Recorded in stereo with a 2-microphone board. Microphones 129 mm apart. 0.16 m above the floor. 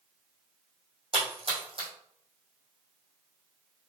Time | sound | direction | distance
1.1 | a splash | 45° right (ahead or behind) | 2 m